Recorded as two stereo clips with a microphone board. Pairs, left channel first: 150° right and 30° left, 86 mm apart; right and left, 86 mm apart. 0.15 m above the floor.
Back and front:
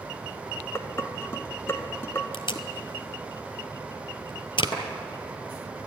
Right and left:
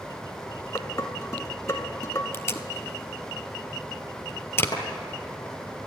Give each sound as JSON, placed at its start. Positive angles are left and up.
{"t": 0.8, "sound": "dishes clattering", "azimuth_deg": -110, "distance_m": 1.0}
{"t": 2.3, "sound": "tape being pulled", "azimuth_deg": -150, "distance_m": 0.6}
{"t": 4.7, "sound": "a clap", "azimuth_deg": -130, "distance_m": 5.5}